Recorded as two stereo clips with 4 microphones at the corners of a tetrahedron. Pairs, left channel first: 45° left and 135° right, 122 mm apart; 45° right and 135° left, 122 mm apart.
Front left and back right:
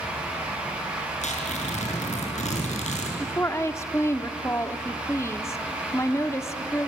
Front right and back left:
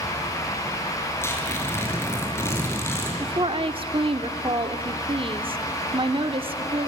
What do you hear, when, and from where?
1.2 s tearing paper: 25° left, 6.5 m
3.2 s a woman speaking: 110° left, 1.3 m